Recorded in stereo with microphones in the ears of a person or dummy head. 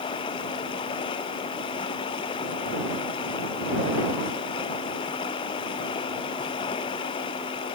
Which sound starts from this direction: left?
Running water, at 0.0 s.